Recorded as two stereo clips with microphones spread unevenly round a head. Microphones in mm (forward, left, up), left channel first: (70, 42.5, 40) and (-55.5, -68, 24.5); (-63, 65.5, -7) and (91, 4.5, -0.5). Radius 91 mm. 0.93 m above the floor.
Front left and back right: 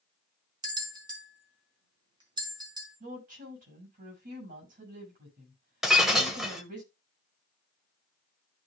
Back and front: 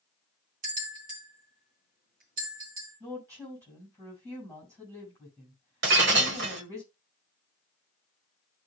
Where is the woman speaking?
95° right, 6.5 m.